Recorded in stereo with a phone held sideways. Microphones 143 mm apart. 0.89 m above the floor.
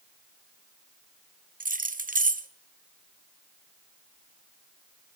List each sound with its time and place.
1.6 s keys jangling: 80° right, 0.5 m